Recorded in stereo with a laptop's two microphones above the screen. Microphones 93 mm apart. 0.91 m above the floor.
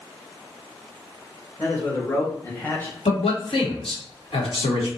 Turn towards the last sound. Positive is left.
turn(degrees=80)